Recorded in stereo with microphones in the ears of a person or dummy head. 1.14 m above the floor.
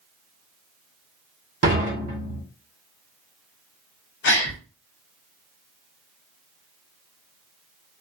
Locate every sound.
1.6 s dishes clattering: 50° right (ahead or behind), 1.4 m
4.2 s a gasp: 60° left (ahead or behind), 0.7 m